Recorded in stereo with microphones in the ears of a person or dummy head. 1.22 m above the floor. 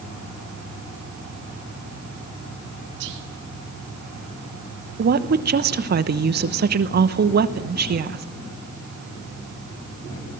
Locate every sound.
3.0 s whispering: 60° right (ahead or behind), 1.1 m
5.0 s a woman speaking: 50° right (ahead or behind), 1.0 m